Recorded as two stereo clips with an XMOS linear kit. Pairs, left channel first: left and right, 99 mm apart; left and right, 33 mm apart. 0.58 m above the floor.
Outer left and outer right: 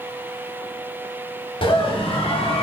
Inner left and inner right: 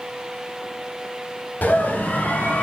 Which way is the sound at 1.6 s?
55° left (ahead or behind).